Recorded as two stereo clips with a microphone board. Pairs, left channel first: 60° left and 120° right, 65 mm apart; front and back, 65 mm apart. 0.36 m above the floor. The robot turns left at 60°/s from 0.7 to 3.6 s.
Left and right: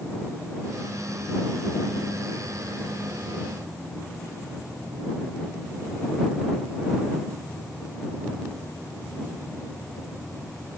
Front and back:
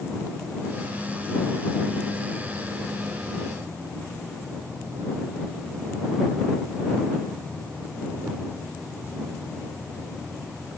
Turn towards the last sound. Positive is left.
No sound to turn to.